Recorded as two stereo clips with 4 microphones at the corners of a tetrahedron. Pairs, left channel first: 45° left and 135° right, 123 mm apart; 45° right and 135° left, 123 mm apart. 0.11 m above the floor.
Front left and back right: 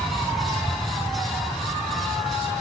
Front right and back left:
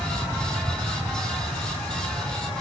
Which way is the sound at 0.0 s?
155° left.